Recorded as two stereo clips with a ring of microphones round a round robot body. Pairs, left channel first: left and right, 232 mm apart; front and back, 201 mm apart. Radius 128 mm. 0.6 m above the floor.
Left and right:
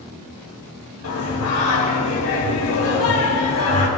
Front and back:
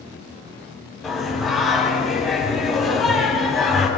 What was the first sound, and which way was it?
Singing, 90° left.